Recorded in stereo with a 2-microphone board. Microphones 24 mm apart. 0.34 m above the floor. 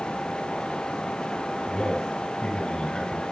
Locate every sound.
1.7 s a man speaking: 35° left (ahead or behind), 5 m